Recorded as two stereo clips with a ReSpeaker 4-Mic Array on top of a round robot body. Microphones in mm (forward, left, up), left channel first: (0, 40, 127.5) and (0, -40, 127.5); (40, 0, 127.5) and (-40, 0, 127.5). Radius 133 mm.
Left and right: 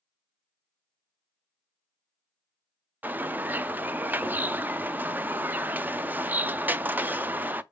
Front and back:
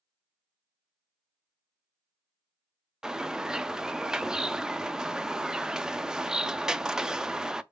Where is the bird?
110° right, 0.6 m.